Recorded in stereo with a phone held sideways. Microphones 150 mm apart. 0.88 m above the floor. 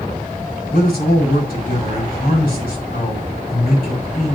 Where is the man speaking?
80° left, 6 m.